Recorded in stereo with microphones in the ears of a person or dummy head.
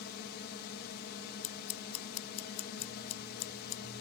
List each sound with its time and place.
0.0 s a drone: 55° left (ahead or behind)
1.4 s scissors: 35° left (ahead or behind)